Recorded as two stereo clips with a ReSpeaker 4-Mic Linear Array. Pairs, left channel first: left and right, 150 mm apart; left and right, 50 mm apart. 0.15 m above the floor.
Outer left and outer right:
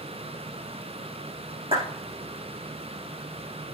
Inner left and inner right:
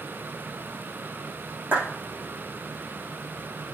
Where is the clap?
35° right (ahead or behind), 7.5 m.